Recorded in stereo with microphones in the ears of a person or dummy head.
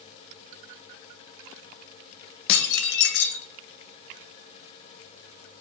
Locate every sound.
2.5 s dishes clattering: 55° left (ahead or behind), 0.9 m